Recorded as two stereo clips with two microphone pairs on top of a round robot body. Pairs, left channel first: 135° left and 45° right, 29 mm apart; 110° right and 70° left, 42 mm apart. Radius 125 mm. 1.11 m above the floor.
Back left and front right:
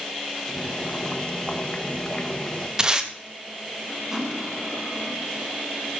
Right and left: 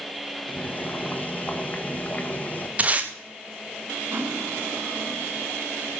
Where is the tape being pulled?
15° left, 2 m.